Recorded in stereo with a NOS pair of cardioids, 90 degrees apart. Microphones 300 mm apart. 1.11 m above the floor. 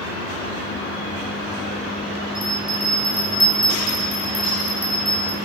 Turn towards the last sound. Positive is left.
turn(degrees=-15)